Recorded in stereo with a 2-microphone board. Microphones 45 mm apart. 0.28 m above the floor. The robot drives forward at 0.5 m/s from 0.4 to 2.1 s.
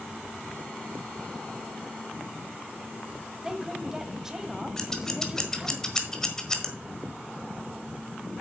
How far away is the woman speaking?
About 1.2 m.